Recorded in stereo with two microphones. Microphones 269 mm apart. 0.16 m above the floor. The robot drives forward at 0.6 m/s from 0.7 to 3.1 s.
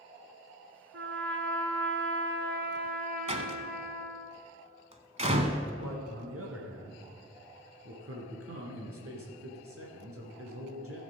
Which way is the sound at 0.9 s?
50° right (ahead or behind).